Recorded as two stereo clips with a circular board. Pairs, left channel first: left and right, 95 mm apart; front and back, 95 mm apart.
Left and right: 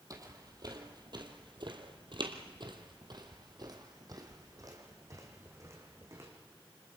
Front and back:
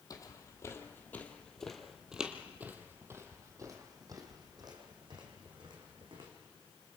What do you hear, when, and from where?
0.1 s footsteps: 45° right, 2.5 m; by 6.3 s 150° right, 5 m